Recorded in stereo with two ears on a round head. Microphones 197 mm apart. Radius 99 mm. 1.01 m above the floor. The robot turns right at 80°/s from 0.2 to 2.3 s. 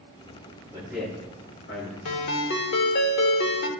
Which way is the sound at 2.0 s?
65° left (ahead or behind).